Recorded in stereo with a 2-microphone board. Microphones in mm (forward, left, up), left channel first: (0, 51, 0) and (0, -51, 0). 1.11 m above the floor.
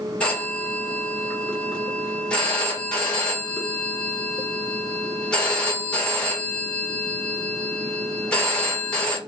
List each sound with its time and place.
0.2 s a phone ringing: 10° left (ahead or behind), 1.6 m